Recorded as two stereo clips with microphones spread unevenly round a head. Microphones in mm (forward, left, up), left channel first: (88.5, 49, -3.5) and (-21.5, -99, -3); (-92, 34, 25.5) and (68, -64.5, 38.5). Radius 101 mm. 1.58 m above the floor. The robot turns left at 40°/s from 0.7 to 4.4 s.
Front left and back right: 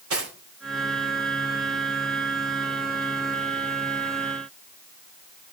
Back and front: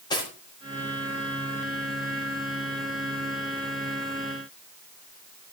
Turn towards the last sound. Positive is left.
turn(degrees=70)